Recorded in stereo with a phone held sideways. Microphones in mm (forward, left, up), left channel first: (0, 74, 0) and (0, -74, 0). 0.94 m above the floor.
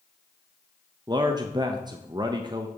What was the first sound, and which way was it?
A man speaking, 30° right (ahead or behind).